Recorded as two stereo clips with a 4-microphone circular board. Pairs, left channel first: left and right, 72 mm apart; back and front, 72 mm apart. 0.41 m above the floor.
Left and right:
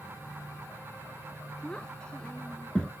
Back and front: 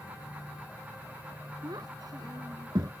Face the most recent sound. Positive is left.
turn(degrees=15)